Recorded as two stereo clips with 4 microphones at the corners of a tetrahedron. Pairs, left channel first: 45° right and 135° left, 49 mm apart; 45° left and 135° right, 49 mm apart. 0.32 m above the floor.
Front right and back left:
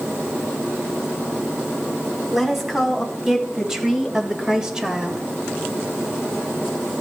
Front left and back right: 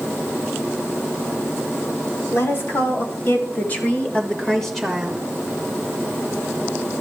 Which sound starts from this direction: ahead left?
A woman speaking, at 2.3 s.